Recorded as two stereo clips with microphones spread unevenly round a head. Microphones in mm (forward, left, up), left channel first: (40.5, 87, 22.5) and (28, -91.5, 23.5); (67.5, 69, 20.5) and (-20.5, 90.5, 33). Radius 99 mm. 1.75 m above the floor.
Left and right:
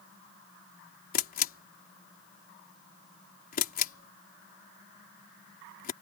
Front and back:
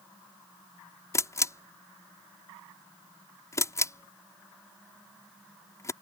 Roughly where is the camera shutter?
Ahead left.